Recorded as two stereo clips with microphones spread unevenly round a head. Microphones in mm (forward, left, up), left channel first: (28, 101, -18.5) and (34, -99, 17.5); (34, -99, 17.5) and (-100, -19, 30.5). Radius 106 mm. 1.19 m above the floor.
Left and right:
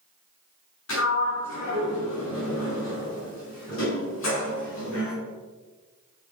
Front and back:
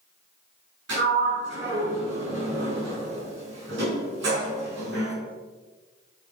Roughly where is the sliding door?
Behind left.